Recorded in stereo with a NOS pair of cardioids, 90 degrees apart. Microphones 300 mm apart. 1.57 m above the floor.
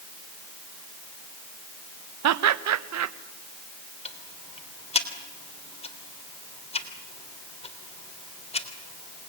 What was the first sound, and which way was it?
Laughter, 60° right.